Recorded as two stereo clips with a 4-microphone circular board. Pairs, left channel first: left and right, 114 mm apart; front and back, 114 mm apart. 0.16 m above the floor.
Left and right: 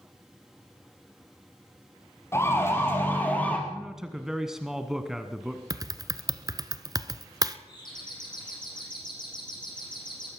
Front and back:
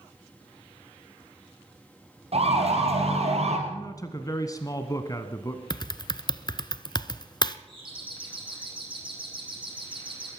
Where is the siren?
155° left, 4.5 m; by 3.6 s 165° left, 3.5 m.